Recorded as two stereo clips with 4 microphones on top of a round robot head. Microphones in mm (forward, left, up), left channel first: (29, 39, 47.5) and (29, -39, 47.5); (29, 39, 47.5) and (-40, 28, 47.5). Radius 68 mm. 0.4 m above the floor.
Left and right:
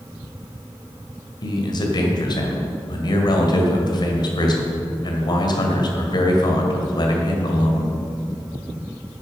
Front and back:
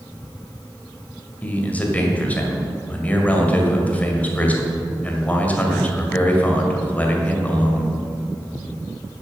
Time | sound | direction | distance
1.4 | a man speaking | 75° left | 1.7 m